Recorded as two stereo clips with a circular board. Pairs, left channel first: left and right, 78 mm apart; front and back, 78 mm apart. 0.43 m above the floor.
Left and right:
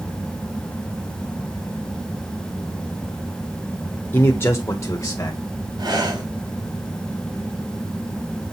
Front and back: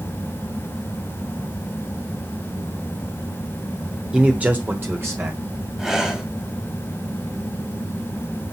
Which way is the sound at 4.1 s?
115° left.